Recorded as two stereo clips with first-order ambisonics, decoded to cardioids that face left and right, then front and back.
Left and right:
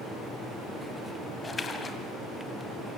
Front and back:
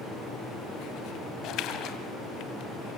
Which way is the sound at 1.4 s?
20° left.